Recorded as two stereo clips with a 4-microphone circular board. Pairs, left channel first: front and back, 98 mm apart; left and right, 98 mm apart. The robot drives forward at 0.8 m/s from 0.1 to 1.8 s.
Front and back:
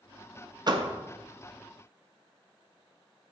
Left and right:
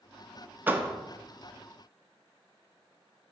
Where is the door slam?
155° right, 0.7 m; by 0.9 s 160° right, 0.9 m.